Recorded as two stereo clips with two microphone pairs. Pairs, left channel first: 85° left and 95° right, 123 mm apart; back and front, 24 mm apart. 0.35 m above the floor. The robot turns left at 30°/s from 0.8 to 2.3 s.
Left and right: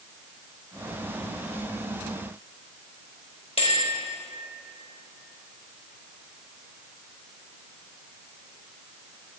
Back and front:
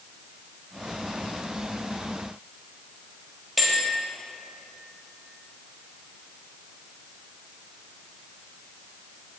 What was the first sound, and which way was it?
A bell, 85° left.